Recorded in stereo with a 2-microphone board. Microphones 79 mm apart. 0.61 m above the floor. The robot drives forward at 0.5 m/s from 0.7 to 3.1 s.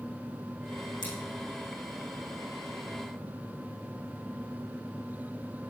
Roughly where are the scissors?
Left.